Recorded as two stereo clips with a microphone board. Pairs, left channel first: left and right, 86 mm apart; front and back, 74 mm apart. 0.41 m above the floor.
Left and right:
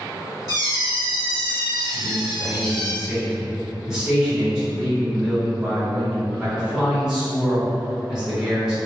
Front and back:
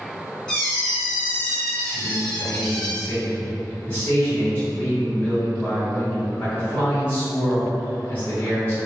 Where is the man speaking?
15° right, 1.4 m.